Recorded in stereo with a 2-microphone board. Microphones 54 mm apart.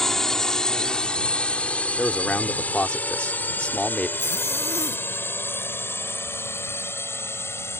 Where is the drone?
5° left (ahead or behind); by 7.8 s 50° left (ahead or behind).